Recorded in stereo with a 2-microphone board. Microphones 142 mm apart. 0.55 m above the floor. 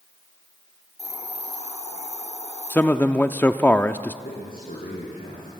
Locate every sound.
1.0 s a hiss: 50° left (ahead or behind), 3.5 m
2.7 s a man speaking: 15° left (ahead or behind), 0.6 m
4.2 s a man speaking: 85° left, 5.5 m